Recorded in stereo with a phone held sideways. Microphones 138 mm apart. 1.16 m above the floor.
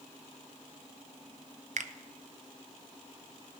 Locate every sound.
1.8 s a finger snap: 60° right (ahead or behind), 0.5 m